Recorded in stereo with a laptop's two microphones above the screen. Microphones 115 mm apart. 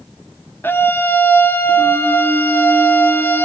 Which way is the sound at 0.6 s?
20° left (ahead or behind).